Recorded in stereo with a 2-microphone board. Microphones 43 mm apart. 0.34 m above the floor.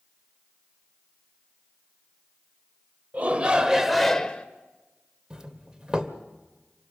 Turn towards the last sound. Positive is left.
turn(degrees=-15)  # may be behind; listen again after turning